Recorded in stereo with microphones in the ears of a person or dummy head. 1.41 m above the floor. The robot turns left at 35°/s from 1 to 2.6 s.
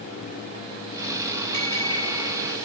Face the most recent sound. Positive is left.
turn(degrees=180)